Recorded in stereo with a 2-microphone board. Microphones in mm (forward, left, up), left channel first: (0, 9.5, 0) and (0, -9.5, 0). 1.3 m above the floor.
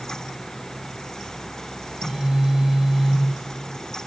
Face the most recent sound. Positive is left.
turn(degrees=-70)  # may be behind; listen again after turning